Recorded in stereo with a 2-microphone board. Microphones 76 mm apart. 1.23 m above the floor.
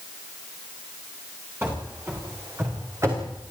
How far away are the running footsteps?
About 7.5 m.